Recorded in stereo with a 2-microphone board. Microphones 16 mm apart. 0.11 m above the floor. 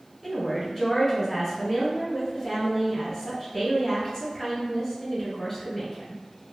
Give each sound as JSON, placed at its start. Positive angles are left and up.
{"t": 0.2, "sound": "a woman speaking", "side_deg": 10, "distance_m": 1.1}